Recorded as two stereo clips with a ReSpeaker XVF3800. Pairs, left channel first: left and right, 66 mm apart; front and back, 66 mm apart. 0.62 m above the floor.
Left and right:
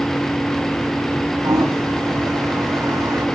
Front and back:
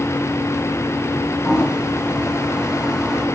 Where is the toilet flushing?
105° right, 3.5 m.